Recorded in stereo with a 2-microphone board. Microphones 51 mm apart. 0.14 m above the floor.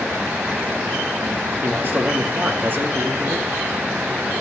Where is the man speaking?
40° right (ahead or behind), 2 m.